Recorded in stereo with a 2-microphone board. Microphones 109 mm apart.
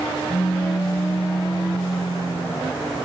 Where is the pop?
30° left (ahead or behind).